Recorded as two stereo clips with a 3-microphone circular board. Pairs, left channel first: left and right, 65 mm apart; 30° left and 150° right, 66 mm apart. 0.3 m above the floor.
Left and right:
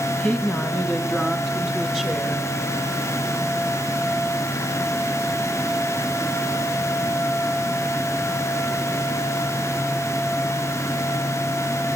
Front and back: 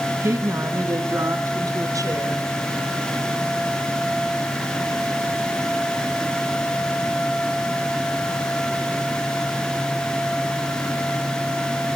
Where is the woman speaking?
160° left, 1.8 m; by 2.5 s 175° left, 3.5 m.